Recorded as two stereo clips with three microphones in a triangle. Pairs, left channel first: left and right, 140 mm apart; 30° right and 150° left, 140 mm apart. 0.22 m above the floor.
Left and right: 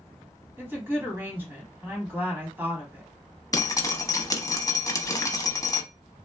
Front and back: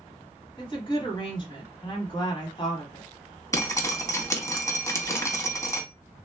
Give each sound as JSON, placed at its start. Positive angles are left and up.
{"t": 0.6, "sound": "a woman speaking", "azimuth_deg": -25, "distance_m": 1.3}
{"t": 3.5, "sound": "dripping", "azimuth_deg": 30, "distance_m": 0.7}